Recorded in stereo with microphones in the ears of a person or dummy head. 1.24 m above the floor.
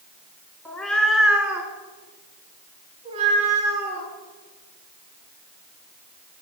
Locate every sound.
0.7 s a cat meowing: 5° left (ahead or behind), 1.7 m; by 6.4 s 60° right (ahead or behind), 4 m